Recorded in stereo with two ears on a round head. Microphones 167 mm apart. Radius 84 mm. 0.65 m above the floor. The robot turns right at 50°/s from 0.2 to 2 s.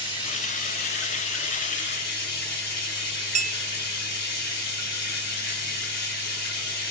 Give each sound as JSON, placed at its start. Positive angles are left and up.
{"t": 0.0, "sound": "running water", "azimuth_deg": 30, "distance_m": 2.0}
{"t": 3.4, "sound": "a clink", "side_deg": -40, "distance_m": 0.7}